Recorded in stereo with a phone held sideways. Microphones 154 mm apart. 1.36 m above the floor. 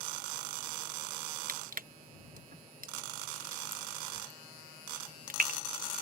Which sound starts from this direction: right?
Crushing, at 1.5 s.